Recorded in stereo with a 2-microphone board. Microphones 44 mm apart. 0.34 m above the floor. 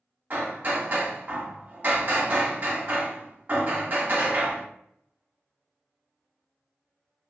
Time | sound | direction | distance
0.3 | hammering | 45° right (ahead or behind) | 1.3 m